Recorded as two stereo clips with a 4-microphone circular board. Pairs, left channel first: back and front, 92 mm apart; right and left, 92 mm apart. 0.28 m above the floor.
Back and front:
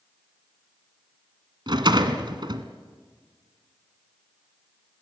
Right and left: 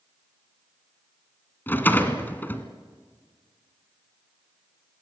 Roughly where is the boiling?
I don't hear boiling.